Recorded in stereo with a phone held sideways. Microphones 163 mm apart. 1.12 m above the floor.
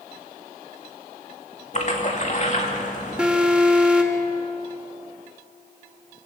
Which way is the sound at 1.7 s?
45° left (ahead or behind).